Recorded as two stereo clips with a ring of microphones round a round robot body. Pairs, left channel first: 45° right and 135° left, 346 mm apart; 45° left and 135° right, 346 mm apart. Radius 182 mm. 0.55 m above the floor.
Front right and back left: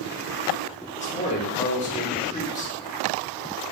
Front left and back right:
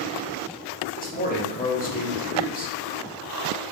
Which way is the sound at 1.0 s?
5° left.